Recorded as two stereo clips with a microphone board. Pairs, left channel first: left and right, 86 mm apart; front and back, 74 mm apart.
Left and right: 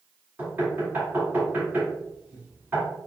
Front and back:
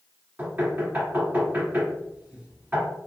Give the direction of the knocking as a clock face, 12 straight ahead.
5 o'clock.